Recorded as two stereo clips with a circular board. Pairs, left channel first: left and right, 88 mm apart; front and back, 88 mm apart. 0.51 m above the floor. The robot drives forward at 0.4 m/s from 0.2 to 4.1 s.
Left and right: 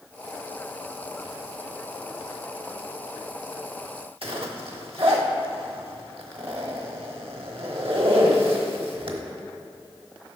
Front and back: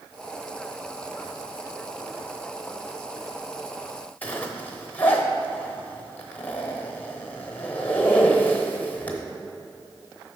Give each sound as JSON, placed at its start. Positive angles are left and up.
{"t": 4.2, "sound": "a zipper", "azimuth_deg": -70, "distance_m": 0.9}